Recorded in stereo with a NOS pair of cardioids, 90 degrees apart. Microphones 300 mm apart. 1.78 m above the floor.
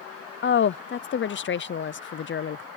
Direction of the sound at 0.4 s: 40° left.